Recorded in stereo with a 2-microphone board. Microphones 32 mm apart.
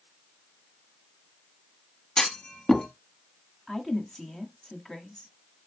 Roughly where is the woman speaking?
Centre.